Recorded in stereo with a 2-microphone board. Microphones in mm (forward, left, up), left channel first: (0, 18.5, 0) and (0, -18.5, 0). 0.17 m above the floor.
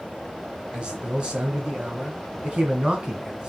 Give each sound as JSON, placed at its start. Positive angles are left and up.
{"t": 0.7, "sound": "a man speaking", "side_deg": -25, "distance_m": 1.8}